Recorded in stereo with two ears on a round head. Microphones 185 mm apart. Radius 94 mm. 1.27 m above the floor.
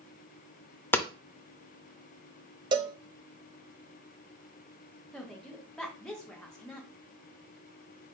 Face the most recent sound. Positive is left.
turn(degrees=5)  # may be behind; listen again after turning